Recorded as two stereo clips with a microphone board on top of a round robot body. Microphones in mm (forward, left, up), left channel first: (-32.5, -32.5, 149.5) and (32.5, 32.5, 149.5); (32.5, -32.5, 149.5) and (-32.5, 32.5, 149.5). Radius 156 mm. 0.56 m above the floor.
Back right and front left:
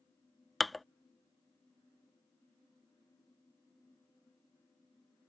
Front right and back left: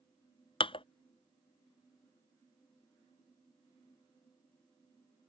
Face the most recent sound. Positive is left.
turn(degrees=-45)